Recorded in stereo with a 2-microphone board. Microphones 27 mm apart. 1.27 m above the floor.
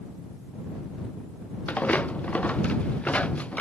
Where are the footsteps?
60° left (ahead or behind); by 3.6 s 55° left (ahead or behind).